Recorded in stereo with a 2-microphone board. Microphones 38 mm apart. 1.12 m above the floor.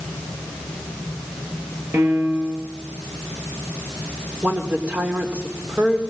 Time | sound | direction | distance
1.9 | a piano | 80° right | 5.5 m
4.4 | a woman speaking | 40° right (ahead or behind) | 4 m